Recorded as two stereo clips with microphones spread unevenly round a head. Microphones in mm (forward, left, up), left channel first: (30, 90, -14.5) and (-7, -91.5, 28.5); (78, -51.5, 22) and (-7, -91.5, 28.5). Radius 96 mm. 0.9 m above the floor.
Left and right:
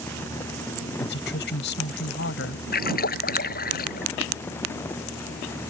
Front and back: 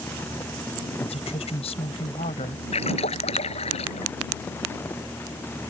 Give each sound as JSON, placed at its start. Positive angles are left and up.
{"t": 1.0, "sound": "a woman speaking", "azimuth_deg": 50}
{"t": 2.7, "sound": "a splash", "azimuth_deg": 40}